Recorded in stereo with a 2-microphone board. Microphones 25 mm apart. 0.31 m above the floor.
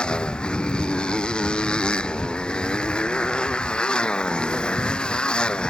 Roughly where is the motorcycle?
Left.